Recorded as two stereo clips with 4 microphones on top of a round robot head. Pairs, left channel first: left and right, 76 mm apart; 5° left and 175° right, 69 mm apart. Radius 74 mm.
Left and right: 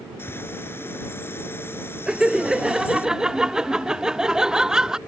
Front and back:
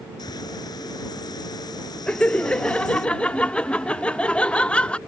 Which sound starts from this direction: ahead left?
A bird, at 0.2 s.